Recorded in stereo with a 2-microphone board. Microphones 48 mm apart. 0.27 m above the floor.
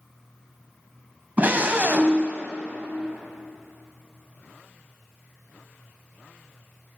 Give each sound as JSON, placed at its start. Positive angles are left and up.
{"t": 1.4, "sound": "a scream", "side_deg": -35, "distance_m": 1.8}